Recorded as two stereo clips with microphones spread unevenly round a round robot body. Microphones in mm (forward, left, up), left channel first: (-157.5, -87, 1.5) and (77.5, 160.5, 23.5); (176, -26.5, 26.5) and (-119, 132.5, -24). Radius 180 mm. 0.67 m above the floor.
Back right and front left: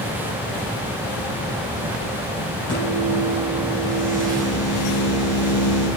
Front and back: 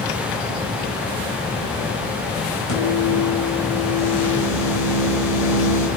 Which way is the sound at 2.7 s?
30° right.